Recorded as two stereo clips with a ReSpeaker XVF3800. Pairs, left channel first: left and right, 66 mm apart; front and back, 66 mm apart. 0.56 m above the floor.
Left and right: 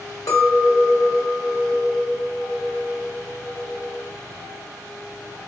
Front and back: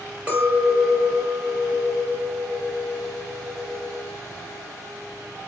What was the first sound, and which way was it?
A clink, 110° left.